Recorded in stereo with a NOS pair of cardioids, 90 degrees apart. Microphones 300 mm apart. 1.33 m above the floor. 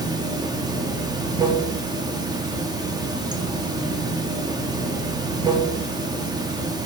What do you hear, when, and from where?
0.0 s running water: 15° right, 0.7 m